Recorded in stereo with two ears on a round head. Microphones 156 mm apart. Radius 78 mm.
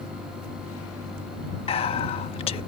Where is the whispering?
35° left (ahead or behind).